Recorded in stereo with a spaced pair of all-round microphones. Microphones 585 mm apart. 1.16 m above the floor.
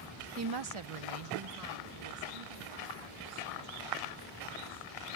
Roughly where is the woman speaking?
Right.